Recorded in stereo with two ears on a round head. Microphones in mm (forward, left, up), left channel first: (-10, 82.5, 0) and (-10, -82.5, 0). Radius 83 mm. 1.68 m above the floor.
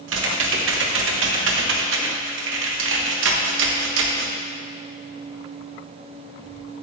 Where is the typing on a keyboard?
85° right, 1.0 m.